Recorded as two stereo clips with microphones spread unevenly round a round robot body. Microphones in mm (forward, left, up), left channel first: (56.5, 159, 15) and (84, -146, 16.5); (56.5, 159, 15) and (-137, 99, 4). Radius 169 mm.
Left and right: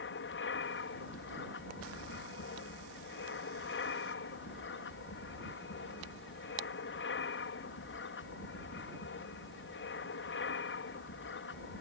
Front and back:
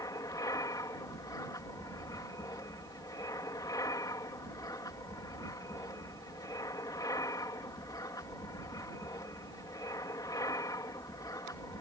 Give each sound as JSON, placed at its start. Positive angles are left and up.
{"t": 0.0, "sound": "an aircraft", "azimuth_deg": 80}